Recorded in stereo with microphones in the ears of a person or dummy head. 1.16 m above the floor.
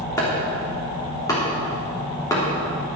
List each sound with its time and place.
0.2 s chopping: 15° left (ahead or behind), 3 m